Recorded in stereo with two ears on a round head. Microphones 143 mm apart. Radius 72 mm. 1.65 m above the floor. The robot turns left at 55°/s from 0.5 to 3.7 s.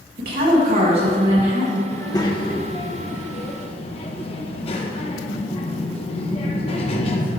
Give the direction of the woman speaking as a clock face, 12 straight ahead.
4 o'clock.